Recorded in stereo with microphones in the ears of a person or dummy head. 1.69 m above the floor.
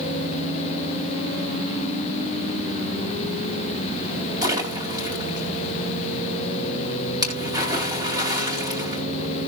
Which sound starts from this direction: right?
A splash, at 4.4 s.